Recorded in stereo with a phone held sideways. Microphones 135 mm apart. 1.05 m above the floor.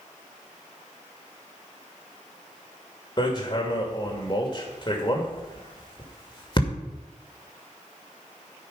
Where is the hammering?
35° left (ahead or behind), 2.5 m.